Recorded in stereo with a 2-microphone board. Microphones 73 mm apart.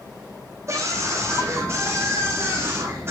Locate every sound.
0.7 s a scream: 45° right (ahead or behind), 7.5 m; by 3.1 s 35° right (ahead or behind), 9 m